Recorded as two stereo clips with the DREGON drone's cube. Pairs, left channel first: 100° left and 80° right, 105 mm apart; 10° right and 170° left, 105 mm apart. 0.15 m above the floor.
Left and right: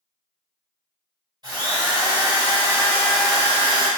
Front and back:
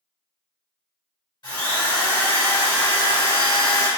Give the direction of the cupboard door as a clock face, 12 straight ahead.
No cupboard door in this recording.